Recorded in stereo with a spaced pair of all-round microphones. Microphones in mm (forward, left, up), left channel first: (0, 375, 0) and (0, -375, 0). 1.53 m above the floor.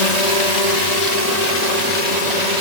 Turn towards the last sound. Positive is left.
turn(degrees=65)  # may be behind; listen again after turning